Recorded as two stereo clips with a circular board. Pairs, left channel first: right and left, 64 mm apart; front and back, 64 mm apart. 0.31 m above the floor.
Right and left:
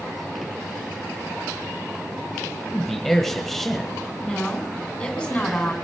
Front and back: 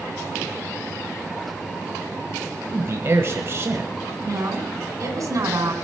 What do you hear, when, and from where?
2.7 s a man speaking: 175° right, 1.4 m
4.2 s a woman speaking: 165° right, 3 m